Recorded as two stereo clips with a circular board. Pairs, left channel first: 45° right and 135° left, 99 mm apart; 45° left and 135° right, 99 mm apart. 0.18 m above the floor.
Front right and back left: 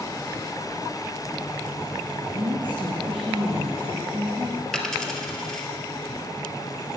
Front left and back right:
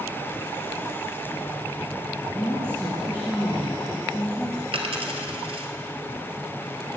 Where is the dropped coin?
130° right, 1.3 m.